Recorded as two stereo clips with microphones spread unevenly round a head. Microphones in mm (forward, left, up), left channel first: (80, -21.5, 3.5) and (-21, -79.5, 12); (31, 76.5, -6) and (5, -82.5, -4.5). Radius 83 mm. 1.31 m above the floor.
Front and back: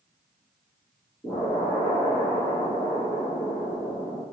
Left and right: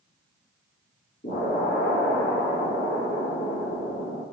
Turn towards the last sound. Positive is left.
turn(degrees=115)